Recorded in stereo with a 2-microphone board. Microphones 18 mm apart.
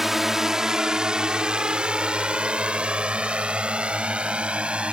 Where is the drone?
15° right (ahead or behind); by 4.9 s 80° right.